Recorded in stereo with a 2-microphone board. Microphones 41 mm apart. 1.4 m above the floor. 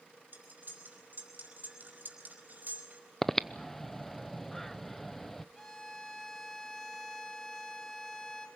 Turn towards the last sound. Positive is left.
turn(degrees=10)  # may be behind; listen again after turning